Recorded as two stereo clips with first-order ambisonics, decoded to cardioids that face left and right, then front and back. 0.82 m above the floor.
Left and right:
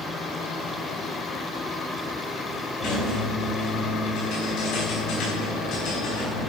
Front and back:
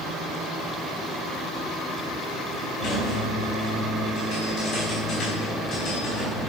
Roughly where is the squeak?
Ahead left.